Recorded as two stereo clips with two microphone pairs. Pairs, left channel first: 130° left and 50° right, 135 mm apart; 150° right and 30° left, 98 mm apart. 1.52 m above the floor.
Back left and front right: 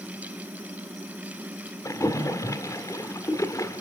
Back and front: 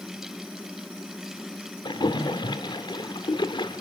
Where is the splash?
165° right, 1.7 m.